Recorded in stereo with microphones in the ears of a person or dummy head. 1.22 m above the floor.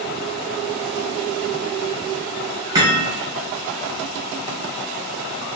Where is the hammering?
20° right (ahead or behind), 2.0 m.